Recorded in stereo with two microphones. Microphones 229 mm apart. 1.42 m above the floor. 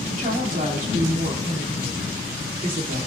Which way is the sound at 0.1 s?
35° right (ahead or behind).